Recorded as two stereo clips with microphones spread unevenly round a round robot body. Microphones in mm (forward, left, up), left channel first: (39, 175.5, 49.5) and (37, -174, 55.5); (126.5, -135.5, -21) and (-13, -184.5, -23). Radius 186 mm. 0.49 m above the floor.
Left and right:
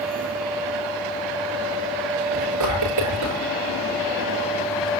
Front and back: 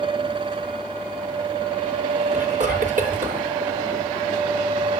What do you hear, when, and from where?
2.3 s whispering: 135° right, 8.5 m